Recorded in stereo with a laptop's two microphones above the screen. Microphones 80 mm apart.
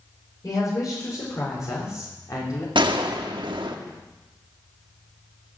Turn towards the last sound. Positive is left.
turn(degrees=-80)